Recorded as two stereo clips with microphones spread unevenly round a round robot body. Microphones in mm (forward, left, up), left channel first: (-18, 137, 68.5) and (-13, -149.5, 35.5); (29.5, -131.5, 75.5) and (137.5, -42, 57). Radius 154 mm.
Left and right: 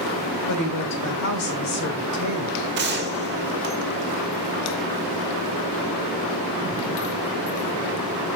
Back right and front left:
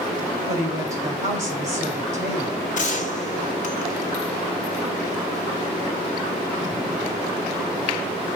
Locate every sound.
0.5 s a woman speaking: 100° left, 2 m
2.8 s a gunshot: 125° right, 0.9 m